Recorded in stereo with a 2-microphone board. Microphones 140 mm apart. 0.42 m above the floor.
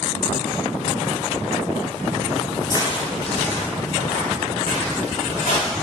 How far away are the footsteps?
About 0.6 m.